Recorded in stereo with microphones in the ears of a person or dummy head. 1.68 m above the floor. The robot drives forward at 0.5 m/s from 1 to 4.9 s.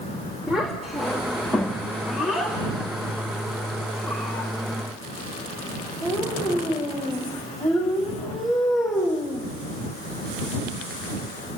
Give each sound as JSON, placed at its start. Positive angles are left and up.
{"t": 0.5, "sound": "a child speaking", "side_deg": -5, "distance_m": 2.5}